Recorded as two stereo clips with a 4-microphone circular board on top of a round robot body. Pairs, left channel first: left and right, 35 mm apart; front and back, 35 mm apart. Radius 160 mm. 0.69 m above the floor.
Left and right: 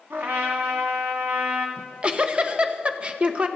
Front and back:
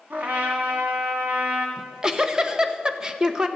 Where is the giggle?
125° right, 1.2 m.